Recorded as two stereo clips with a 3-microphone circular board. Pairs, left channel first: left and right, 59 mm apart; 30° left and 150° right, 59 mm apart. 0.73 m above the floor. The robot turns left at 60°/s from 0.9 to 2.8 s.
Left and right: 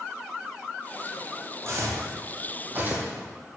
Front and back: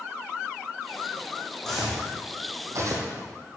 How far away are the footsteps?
About 1.8 m.